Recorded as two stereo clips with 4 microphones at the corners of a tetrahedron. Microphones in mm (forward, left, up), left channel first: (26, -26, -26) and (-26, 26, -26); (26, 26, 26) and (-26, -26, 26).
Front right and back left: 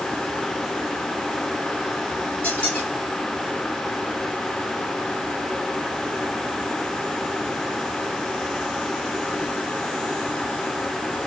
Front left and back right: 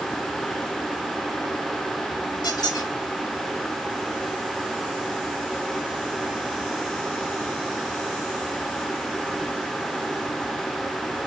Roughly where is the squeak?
Ahead left.